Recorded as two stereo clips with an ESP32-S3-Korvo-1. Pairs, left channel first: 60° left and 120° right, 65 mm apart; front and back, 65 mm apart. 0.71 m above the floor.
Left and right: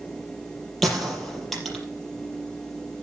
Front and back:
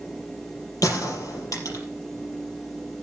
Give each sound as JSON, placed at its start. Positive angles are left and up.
{"t": 0.8, "sound": "a gunshot", "azimuth_deg": -30, "distance_m": 5.0}